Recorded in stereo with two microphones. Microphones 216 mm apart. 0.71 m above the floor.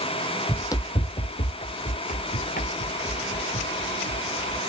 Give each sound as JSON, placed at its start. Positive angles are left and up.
{"t": 0.5, "sound": "running footsteps", "side_deg": 10}